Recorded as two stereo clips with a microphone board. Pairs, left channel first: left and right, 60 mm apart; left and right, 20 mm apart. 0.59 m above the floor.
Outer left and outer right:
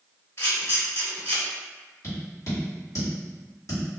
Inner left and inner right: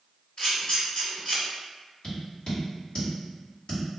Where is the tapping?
60° left (ahead or behind), 1.7 m.